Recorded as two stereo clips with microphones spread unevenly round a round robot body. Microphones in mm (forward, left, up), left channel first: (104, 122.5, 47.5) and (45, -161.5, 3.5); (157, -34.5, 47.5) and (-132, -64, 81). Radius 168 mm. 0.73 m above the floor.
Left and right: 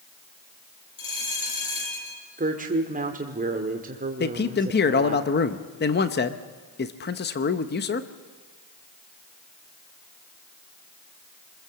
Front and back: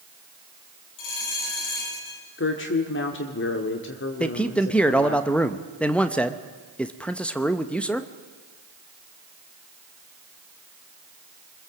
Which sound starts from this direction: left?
A man speaking, at 4.2 s.